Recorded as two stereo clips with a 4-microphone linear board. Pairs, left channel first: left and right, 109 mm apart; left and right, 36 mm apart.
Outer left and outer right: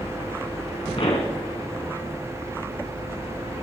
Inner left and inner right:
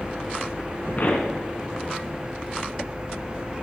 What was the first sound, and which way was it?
A pop, 60° left (ahead or behind).